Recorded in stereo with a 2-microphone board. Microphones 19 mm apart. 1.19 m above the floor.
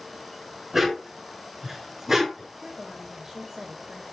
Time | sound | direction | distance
0.7 | a dog barking | 20° right (ahead or behind) | 5 m
2.6 | a woman speaking | 30° right (ahead or behind) | 2.5 m